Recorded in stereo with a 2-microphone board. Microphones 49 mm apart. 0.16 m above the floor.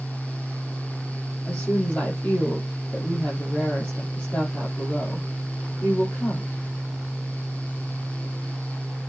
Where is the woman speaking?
30° left (ahead or behind), 5.5 m.